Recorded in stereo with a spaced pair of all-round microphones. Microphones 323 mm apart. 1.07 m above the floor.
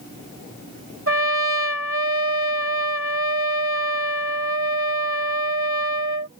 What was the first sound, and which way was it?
A trumpet, 45° right (ahead or behind).